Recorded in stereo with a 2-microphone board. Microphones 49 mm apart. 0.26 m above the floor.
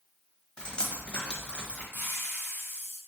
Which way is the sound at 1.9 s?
50° left (ahead or behind).